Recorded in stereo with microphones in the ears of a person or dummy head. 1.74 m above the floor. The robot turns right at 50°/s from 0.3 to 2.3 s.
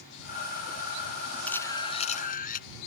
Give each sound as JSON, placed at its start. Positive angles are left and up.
{"t": 1.5, "sound": "a camera shutter", "azimuth_deg": 10}